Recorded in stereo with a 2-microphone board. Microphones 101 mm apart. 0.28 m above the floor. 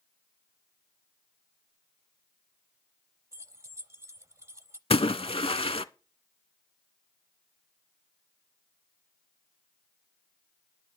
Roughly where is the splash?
Left.